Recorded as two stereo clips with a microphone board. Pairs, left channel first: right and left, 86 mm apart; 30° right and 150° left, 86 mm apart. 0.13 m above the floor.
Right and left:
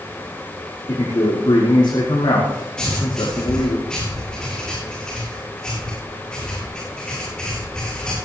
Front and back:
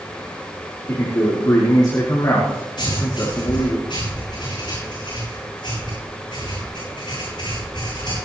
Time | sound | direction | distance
0.9 | a man speaking | 65° right | 5 m
2.8 | writing | 10° right | 7.5 m